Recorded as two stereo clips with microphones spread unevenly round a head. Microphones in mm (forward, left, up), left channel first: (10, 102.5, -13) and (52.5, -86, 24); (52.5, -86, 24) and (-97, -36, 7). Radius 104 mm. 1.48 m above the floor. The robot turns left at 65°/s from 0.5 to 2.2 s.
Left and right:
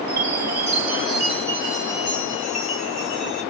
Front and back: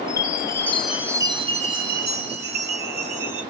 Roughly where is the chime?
Right.